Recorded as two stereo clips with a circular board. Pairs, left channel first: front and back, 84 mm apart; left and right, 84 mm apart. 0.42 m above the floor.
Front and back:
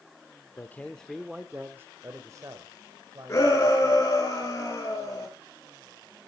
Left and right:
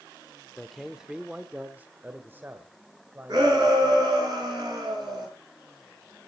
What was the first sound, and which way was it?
A man speaking, 5° left.